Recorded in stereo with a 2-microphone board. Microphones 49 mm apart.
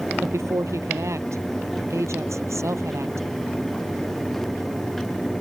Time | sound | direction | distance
0.2 | a woman speaking | 70° right (ahead or behind) | ?